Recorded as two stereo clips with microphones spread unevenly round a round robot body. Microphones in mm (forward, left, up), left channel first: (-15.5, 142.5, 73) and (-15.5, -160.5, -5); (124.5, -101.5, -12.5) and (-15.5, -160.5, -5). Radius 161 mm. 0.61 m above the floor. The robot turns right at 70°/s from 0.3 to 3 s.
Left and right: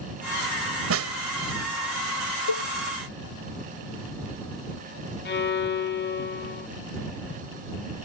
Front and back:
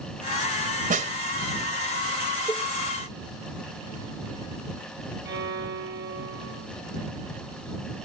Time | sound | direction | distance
0.9 | a snare drum | 130° right | ?
2.5 | a cowbell | 100° left | ?
5.2 | a violin | 150° left | ?